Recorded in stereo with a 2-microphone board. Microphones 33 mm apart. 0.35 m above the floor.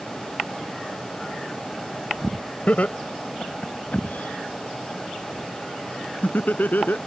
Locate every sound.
2.7 s laughter: 45° left (ahead or behind); by 7.0 s 65° left (ahead or behind)